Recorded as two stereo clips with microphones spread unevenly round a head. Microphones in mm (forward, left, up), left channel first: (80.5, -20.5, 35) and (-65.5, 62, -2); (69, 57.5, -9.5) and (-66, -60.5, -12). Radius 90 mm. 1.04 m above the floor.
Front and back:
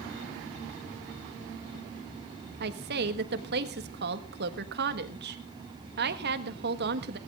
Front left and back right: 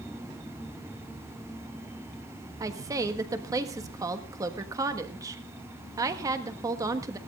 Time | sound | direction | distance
2.6 | a woman speaking | 150° left | 1.4 m